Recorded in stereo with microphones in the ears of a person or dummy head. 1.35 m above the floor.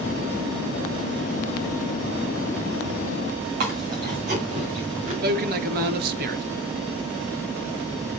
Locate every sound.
3.6 s chewing: 45° right (ahead or behind), 2.5 m
5.2 s a man speaking: 55° right (ahead or behind), 1.0 m